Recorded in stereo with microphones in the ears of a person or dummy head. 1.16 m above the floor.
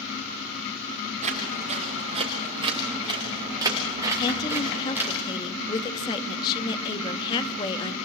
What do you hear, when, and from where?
1.2 s footsteps: 40° right (ahead or behind), 5.5 m; by 5.2 s 10° right (ahead or behind), 6 m
4.2 s a woman speaking: 25° left (ahead or behind), 1.5 m